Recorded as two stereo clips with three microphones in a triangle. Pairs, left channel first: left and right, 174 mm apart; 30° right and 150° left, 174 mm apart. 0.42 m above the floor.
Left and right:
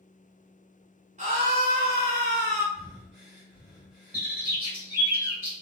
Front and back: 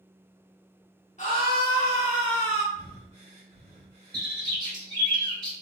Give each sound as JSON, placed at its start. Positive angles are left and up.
{"t": 1.2, "sound": "a scream", "azimuth_deg": -60, "distance_m": 1.1}
{"t": 2.7, "sound": "breathing", "azimuth_deg": -175, "distance_m": 1.5}
{"t": 4.1, "sound": "a bird", "azimuth_deg": -160, "distance_m": 1.7}